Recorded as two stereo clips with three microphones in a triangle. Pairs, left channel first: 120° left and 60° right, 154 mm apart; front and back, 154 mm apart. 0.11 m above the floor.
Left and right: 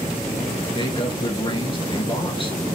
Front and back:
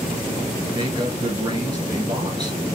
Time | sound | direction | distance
0.8 | a man speaking | 140° left | 2.0 m